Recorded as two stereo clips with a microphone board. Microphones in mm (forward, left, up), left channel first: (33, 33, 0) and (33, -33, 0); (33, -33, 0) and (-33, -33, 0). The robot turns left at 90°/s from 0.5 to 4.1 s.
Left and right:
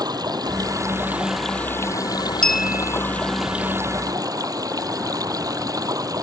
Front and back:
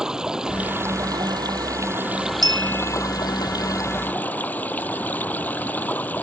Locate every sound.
0.0 s running water: 100° right; by 6.2 s 65° right
2.4 s a clink: 10° left; by 3.0 s 45° right